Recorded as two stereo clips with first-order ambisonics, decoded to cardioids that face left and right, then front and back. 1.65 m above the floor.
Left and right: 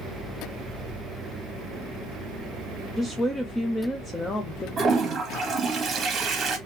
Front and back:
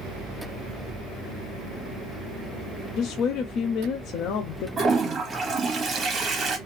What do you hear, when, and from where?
3.0 s a woman speaking: 15° left, 0.5 m
4.8 s a toilet flushing: 130° right, 1.0 m